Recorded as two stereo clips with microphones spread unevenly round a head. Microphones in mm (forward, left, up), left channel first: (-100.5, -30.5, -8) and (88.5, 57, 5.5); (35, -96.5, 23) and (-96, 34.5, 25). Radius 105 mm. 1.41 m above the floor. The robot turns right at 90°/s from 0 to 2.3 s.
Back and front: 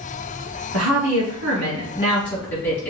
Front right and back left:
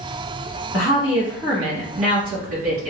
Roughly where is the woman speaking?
Ahead.